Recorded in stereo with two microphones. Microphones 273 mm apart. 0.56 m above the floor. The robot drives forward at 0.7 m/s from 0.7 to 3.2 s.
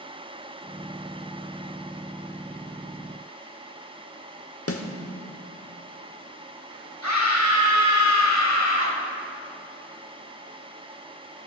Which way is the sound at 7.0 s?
70° left (ahead or behind).